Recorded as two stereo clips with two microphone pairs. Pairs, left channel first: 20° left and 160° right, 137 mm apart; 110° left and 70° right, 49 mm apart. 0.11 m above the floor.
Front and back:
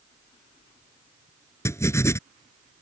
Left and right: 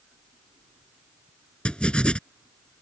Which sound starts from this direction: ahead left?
Writing, at 1.6 s.